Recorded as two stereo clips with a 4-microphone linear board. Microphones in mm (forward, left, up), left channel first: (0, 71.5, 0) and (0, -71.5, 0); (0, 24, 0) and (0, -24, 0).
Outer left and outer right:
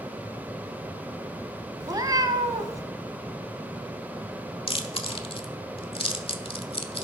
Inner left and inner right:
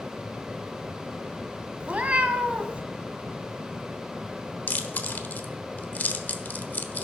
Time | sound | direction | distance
1.8 | a cat meowing | 30° right (ahead or behind) | 1.4 m
4.7 | chewing | 40° left (ahead or behind) | 1.2 m